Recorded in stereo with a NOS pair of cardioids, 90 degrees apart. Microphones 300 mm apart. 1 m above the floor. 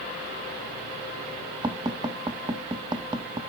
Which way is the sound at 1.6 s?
15° right.